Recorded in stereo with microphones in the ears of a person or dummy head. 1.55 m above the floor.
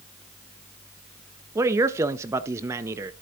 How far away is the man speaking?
About 0.5 m.